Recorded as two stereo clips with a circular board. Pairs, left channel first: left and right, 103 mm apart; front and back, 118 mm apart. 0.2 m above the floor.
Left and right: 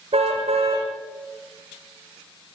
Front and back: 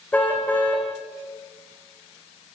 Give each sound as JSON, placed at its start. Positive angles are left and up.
{"t": 0.1, "sound": "a car horn", "azimuth_deg": -80, "distance_m": 6.5}